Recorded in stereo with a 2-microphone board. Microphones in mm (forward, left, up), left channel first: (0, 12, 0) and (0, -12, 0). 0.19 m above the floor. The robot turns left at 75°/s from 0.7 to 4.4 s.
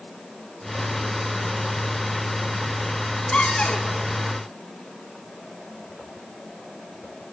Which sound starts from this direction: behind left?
A cupboard door, at 3.3 s.